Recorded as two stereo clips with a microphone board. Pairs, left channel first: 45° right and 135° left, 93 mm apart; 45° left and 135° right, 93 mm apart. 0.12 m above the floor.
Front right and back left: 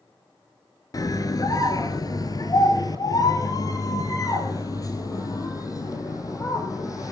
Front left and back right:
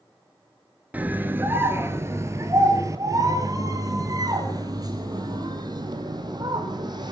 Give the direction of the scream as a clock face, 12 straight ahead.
2 o'clock.